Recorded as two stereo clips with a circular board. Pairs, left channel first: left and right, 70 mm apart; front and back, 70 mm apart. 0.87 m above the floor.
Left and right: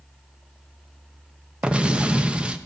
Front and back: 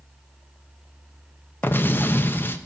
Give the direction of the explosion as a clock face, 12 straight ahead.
1 o'clock.